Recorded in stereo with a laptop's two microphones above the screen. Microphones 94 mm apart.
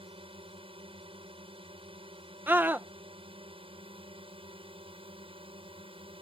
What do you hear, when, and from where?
0.0 s a drone: 70° right (ahead or behind)
2.5 s a scream: 20° right (ahead or behind)